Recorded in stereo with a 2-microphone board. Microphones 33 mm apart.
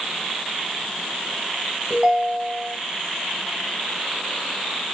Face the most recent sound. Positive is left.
turn(degrees=-30)  # may be behind; listen again after turning